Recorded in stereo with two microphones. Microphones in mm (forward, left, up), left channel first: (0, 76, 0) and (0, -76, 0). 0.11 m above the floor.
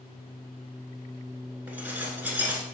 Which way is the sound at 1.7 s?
10° right (ahead or behind).